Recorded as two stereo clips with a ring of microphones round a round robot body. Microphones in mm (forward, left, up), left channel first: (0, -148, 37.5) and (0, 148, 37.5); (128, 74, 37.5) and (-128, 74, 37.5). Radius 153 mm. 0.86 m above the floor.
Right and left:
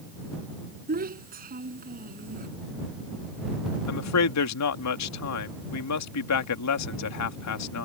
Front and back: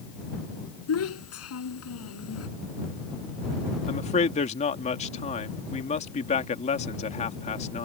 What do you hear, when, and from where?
0.9 s a child speaking: 30° left
3.9 s a man speaking: 65° right